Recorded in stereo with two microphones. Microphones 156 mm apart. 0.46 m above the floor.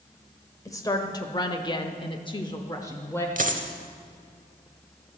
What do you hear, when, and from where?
0.7 s a woman speaking: 20° left (ahead or behind), 1.4 m; by 3.3 s 15° left (ahead or behind), 1.1 m
3.4 s a dropped coin: 60° right (ahead or behind), 0.9 m